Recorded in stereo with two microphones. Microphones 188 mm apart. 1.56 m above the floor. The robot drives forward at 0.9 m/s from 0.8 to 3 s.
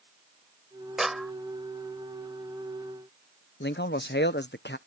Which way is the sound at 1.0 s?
Centre (ahead or behind).